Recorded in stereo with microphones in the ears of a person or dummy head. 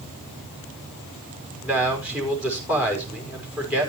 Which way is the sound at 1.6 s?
10° right (ahead or behind).